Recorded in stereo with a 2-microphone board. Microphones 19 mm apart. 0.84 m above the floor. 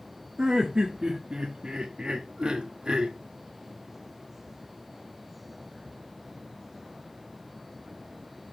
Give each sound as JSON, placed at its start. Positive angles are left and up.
{"t": 0.4, "sound": "laughter", "side_deg": -60, "distance_m": 1.5}